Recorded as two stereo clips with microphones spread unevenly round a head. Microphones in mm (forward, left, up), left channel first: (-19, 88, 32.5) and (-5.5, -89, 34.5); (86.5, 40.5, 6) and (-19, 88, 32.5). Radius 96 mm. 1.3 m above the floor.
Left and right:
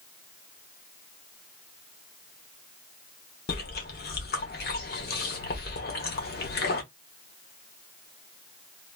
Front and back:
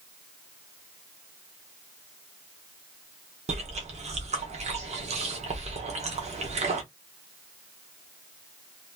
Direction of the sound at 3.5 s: 125° left.